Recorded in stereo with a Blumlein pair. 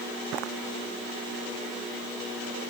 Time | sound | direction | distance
0.3 | footsteps | 35° right | ?